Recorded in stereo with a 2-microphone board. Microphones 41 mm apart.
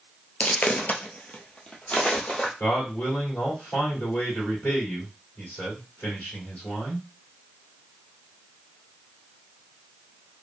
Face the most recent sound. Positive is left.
turn(degrees=45)  # may be behind; listen again after turning